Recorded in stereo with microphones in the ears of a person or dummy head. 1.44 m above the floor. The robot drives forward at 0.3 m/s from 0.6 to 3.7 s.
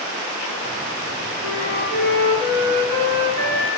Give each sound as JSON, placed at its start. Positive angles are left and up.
{"t": 1.4, "sound": "a flute", "side_deg": -40, "distance_m": 4.0}